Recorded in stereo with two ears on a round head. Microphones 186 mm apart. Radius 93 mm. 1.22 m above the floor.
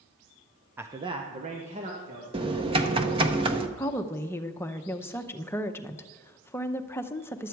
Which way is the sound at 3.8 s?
10° left (ahead or behind).